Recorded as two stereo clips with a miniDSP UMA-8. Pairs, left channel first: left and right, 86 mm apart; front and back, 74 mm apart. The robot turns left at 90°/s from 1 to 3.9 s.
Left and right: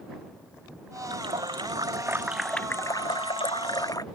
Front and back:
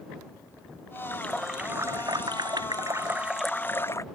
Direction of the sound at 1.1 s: 60° right.